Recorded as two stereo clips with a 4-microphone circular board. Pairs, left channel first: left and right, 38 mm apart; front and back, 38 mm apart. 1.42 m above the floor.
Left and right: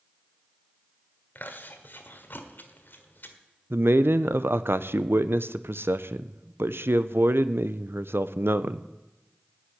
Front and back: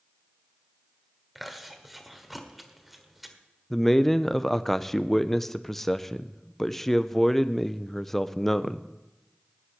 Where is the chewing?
90° left, 1.6 m.